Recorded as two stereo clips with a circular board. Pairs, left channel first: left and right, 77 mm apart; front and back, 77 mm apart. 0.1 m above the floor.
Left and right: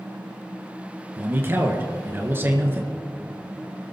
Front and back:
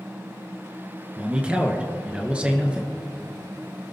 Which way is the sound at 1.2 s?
120° right.